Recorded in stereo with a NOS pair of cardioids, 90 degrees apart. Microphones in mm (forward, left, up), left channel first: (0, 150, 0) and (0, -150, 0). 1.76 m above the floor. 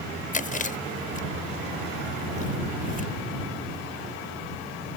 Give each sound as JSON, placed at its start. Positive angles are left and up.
{"t": 0.3, "sound": "chewing", "azimuth_deg": 25}